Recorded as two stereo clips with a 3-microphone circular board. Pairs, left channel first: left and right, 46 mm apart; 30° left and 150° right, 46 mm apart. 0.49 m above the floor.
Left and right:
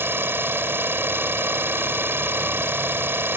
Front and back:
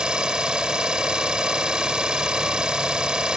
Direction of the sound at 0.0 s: 80° right.